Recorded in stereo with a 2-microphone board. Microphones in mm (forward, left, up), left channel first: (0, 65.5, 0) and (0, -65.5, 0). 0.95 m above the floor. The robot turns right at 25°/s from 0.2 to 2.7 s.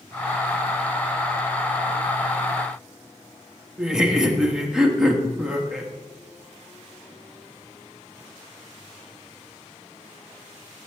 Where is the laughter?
5° right (ahead or behind), 1.3 m.